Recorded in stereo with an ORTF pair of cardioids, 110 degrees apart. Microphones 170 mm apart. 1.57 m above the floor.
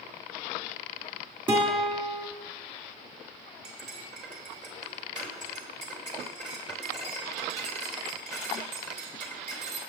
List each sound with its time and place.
1.5 s a guitar: 30° right, 3 m
3.6 s cutlery clinking: 45° right, 3 m